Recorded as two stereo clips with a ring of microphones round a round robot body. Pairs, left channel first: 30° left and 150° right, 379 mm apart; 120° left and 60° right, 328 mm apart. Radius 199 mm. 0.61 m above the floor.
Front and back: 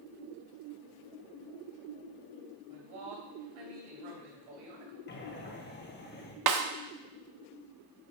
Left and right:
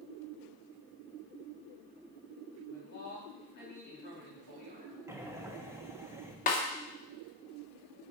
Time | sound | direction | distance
2.7 | a man speaking | 175° right | 3 m
5.1 | breathing | 15° left | 1.1 m
6.5 | a snare drum | straight behind | 0.8 m